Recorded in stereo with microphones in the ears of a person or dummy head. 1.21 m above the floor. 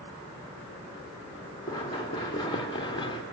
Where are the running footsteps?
20° left (ahead or behind), 3 m; by 3.2 s 25° left (ahead or behind), 1.9 m.